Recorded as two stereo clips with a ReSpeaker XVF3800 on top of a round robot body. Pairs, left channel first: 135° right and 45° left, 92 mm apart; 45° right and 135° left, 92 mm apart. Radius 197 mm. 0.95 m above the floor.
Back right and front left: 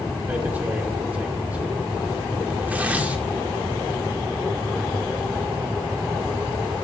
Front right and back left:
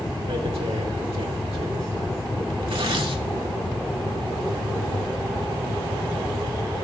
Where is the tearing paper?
120° left, 2 m.